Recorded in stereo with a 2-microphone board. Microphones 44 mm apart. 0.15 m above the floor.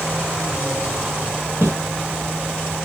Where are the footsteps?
85° right, 1.4 m.